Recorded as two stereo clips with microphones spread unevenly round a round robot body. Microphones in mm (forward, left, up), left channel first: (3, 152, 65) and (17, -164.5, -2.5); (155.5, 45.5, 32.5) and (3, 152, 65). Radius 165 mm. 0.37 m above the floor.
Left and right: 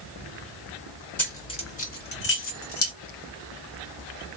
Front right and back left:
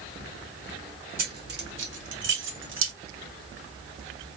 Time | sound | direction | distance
1.2 | keys jangling | 175° right | 1.1 m